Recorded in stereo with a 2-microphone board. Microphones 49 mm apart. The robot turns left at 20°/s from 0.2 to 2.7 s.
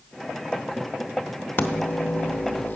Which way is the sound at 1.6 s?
45° left (ahead or behind).